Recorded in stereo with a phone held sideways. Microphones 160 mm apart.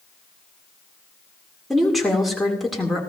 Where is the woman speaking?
Centre (ahead or behind), 2.5 m.